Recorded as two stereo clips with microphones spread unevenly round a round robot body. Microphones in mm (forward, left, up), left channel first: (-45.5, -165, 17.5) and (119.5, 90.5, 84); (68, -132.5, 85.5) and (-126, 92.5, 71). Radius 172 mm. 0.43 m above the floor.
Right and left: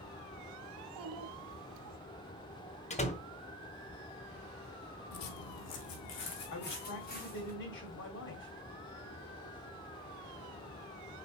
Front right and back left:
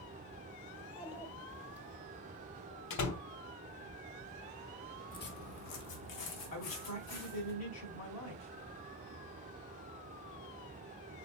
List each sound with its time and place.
0.8 s a child speaking: 45° left, 1.4 m
2.9 s a door slam: 65° right, 1.1 m
5.1 s footsteps: 110° right, 1.0 m; by 7.5 s 60° right, 4 m
6.5 s a man speaking: 80° right, 1.8 m